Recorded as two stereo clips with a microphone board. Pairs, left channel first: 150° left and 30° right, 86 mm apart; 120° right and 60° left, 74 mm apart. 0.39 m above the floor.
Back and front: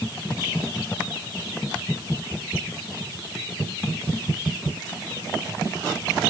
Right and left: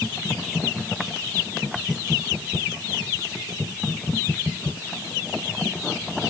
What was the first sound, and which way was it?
Only background noise.